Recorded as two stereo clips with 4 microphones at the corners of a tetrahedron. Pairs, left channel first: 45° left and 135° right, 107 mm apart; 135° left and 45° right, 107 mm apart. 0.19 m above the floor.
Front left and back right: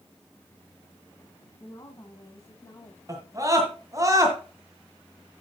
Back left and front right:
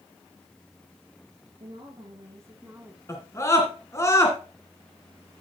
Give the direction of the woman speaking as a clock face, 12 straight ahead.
12 o'clock.